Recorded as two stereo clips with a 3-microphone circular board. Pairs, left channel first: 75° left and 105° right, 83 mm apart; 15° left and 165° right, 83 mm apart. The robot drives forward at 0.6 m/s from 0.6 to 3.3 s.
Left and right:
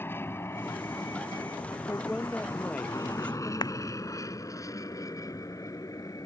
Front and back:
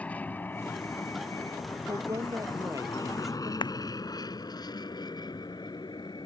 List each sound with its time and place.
0.0 s an aircraft: 65° left; by 6.3 s 35° left
1.9 s a woman speaking: 145° left; by 3.5 s 150° left
3.6 s a clap: 40° left